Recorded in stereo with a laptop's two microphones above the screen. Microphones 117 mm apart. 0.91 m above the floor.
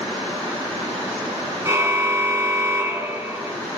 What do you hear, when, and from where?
1.6 s a car horn: 25° right (ahead or behind), 4 m